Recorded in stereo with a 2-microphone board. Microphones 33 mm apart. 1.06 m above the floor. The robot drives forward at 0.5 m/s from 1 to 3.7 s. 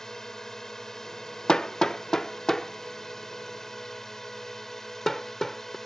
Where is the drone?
15° left (ahead or behind); by 5.9 s 10° left (ahead or behind).